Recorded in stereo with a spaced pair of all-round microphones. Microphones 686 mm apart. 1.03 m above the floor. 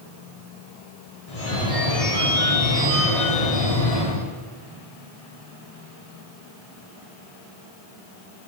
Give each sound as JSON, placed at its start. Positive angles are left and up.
{"t": 1.3, "sound": "a phone ringing", "side_deg": 55, "distance_m": 2.0}